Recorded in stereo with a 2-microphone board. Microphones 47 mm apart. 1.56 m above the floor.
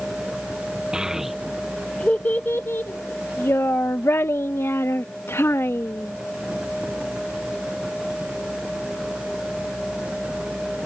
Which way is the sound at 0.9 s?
20° right (ahead or behind).